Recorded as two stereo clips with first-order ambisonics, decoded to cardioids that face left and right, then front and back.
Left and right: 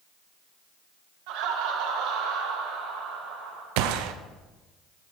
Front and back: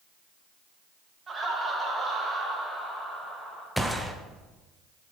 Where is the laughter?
110° right, 2.5 m; by 3.7 s 90° right, 5 m.